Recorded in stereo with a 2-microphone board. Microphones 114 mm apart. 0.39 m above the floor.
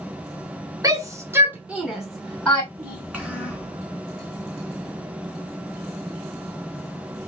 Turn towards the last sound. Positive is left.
turn(degrees=-10)  # may be behind; listen again after turning